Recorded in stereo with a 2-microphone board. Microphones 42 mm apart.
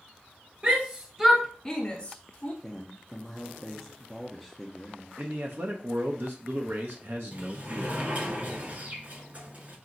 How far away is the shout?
About 1.0 m.